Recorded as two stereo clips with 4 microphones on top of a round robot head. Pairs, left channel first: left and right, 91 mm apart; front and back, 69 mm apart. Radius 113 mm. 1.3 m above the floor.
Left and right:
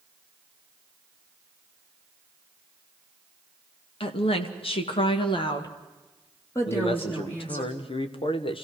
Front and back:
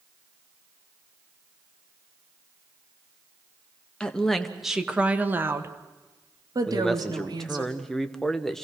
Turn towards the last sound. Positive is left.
turn(degrees=85)